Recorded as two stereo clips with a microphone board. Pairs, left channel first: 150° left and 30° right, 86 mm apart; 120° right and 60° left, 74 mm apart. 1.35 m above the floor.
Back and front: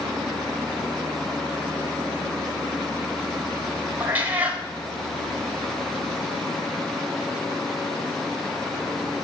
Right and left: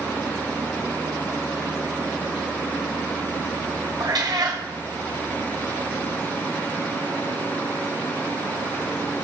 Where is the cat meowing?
40° left, 3.5 m.